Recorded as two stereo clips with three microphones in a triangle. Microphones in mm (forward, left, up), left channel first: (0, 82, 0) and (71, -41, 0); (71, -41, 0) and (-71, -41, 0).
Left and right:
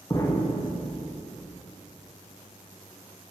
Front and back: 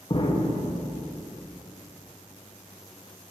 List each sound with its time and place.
0.1 s an explosion: 50° left, 1.0 m